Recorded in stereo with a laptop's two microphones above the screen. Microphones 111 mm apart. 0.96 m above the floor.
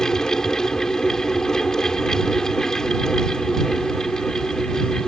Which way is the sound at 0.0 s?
5° left (ahead or behind).